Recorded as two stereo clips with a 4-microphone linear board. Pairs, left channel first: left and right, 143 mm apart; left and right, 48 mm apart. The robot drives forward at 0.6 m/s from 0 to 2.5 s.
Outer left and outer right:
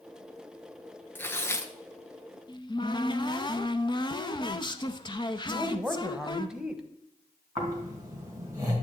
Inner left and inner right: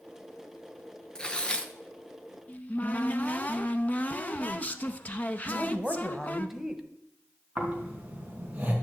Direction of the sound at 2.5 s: 30° left (ahead or behind).